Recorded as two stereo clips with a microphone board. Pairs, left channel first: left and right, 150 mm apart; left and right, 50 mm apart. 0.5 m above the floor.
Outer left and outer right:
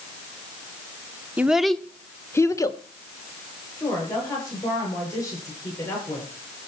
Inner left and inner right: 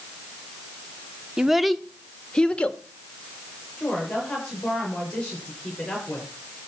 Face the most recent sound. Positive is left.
turn(degrees=20)  # may be behind; listen again after turning